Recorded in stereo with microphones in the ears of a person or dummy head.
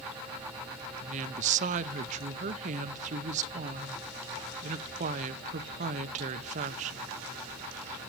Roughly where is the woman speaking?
Right.